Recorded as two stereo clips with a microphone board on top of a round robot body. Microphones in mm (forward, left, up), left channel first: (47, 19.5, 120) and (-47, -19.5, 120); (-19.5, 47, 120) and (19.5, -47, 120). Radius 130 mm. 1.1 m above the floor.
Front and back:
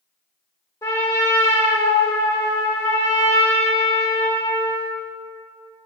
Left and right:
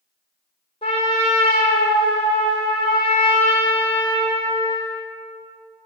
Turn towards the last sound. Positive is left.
turn(degrees=80)